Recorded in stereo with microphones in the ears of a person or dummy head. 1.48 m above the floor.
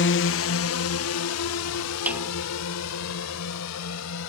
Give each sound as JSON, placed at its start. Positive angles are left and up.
{"t": 0.0, "sound": "a drone", "side_deg": 55}
{"t": 2.1, "sound": "a snare drum", "side_deg": -10}